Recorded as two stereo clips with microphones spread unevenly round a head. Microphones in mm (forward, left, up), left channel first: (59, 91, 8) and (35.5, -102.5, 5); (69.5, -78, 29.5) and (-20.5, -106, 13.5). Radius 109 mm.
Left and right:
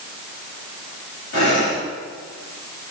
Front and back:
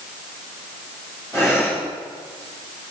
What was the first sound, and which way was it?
Breathing, 95° left.